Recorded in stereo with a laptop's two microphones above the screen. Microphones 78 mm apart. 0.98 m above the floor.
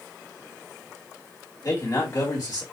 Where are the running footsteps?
No running footsteps in this recording.